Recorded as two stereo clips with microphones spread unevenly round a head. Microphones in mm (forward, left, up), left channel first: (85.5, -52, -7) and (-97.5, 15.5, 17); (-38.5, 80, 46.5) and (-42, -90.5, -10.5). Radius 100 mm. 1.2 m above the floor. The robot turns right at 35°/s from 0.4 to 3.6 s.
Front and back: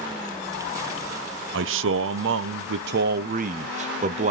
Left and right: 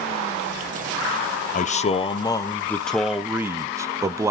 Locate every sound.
1.5 s a man speaking: 140° left, 0.5 m; by 4.3 s 145° right, 0.5 m